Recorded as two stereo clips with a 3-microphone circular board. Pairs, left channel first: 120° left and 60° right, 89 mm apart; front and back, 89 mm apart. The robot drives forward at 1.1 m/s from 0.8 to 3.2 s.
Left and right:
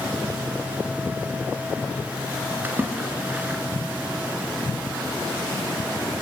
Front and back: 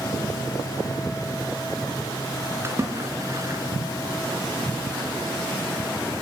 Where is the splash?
125° right, 3.5 m; by 3.6 s 130° right, 3.5 m.